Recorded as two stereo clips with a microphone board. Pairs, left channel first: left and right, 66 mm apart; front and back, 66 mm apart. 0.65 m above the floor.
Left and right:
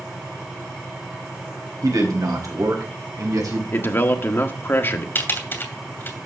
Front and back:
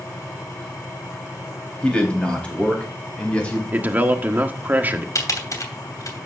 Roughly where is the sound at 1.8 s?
Right.